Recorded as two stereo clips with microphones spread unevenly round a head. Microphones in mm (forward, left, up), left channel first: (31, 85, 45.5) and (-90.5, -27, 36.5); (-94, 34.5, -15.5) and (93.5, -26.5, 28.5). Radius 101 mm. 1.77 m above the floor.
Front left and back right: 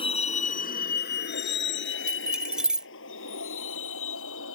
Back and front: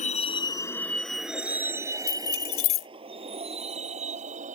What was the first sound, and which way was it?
A vehicle, 100° left.